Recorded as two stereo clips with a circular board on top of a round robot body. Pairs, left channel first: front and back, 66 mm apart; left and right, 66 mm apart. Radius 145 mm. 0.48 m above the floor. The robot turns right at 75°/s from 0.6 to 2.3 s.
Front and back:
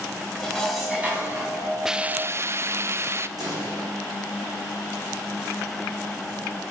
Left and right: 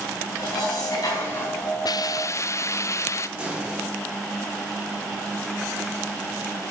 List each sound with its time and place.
0.4 s dishes clattering: 80° left, 4 m; by 1.8 s 165° left, 4 m
1.9 s a hiss: 95° left, 0.5 m; by 3.3 s 130° left, 0.5 m
3.4 s a pop: 155° right, 5.5 m